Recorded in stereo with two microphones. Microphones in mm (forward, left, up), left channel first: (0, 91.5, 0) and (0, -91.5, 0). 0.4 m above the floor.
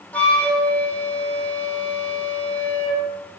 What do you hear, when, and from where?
0.1 s a flute: 10° left (ahead or behind), 3.5 m